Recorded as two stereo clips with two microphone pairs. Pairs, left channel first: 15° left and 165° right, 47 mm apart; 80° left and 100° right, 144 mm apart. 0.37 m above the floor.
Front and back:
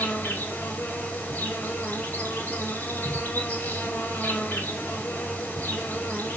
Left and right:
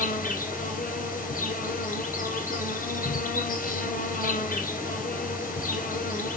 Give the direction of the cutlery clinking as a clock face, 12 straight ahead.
I don't hear cutlery clinking.